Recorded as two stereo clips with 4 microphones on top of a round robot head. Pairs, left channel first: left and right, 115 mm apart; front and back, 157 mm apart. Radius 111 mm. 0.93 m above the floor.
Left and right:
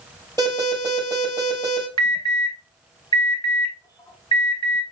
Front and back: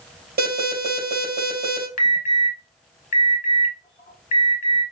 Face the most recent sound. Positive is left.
turn(degrees=40)